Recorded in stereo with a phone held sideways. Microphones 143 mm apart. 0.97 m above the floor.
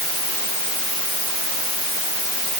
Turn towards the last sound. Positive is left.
No sound to turn to.